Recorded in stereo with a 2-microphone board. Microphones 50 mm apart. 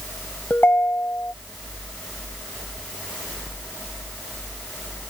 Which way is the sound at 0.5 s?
45° left (ahead or behind).